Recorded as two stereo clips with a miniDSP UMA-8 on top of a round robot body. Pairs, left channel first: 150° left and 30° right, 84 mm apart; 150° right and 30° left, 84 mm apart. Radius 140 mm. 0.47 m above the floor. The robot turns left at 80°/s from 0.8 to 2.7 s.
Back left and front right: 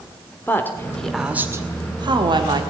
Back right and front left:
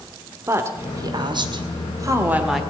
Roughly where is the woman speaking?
Left.